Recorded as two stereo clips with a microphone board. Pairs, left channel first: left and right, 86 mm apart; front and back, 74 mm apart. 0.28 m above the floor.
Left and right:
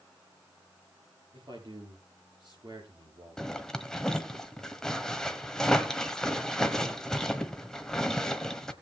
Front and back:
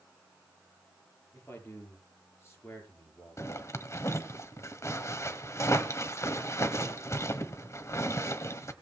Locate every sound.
1.3 s a man speaking: 60° right, 5.5 m
3.4 s a zipper: 10° left, 1.3 m